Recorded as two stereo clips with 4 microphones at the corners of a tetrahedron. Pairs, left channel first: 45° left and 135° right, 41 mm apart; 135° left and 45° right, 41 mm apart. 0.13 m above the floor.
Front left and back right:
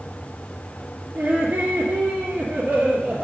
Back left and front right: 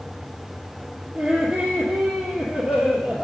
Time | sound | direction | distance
1.1 | laughter | 90° right | 2.5 m